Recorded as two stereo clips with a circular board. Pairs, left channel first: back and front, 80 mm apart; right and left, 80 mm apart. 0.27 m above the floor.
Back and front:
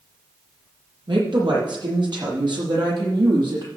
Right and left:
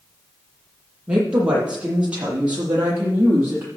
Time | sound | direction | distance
1.1 | a woman speaking | 15° left | 6.5 m